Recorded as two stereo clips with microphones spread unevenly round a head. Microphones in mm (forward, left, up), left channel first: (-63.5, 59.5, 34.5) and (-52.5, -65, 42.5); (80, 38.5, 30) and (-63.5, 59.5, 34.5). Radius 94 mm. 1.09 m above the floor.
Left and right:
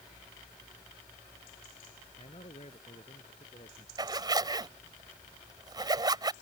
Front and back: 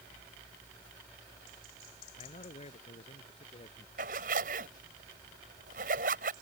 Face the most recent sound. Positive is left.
turn(degrees=-140)